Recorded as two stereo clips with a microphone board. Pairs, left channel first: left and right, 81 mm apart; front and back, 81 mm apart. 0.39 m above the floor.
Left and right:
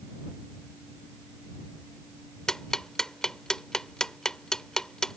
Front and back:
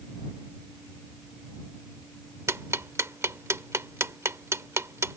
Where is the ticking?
170° left.